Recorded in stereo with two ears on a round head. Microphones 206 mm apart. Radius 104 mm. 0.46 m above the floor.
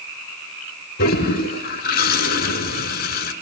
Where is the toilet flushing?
40° left (ahead or behind), 2 m.